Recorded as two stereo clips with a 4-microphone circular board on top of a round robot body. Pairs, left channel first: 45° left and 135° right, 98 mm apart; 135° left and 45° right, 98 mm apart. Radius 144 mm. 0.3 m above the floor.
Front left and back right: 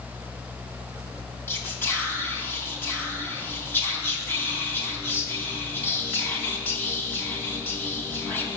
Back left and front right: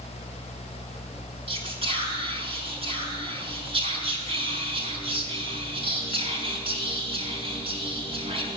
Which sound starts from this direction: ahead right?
Whispering, at 1.5 s.